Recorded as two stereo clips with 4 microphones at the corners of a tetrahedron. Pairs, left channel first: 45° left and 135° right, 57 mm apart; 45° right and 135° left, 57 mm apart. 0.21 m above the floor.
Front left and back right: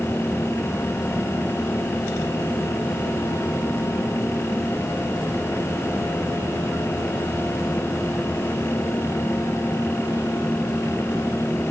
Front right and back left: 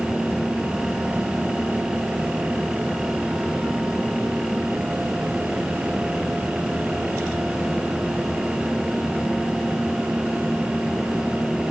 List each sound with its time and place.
Only background noise.